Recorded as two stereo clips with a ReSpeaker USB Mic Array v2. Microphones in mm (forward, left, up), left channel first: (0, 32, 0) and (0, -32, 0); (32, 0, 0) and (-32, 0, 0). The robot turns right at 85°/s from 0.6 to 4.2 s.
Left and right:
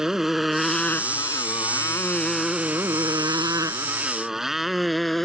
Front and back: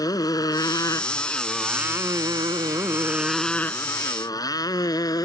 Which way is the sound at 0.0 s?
10° right.